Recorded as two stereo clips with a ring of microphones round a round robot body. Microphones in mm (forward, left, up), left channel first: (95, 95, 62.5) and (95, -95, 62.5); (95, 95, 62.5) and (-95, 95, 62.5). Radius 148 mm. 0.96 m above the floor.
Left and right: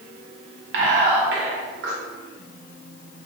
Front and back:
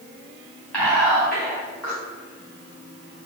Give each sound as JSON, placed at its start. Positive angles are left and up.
{"t": 0.7, "sound": "whispering", "azimuth_deg": -85, "distance_m": 1.4}